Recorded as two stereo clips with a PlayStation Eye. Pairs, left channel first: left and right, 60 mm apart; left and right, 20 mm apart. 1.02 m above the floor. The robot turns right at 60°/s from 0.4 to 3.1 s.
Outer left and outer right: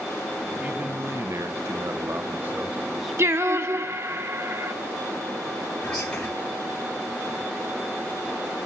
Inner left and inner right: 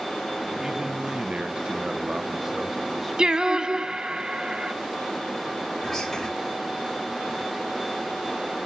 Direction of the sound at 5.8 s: 10° left (ahead or behind).